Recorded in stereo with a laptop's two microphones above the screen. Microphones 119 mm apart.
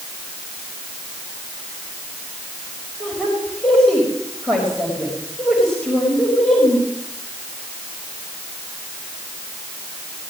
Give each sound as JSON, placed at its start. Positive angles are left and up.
{"t": 3.0, "sound": "a woman speaking", "side_deg": 5, "distance_m": 4.5}